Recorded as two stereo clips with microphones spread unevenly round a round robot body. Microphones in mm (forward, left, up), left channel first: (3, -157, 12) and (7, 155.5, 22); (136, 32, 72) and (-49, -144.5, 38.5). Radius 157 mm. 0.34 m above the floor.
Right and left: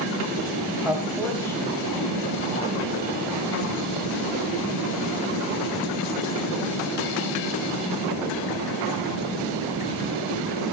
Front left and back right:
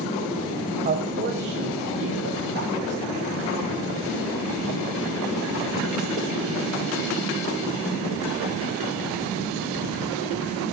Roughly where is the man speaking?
Behind.